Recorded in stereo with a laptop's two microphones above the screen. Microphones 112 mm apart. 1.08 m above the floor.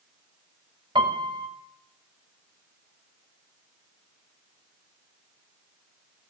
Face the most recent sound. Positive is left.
turn(degrees=-45)  # may be behind; listen again after turning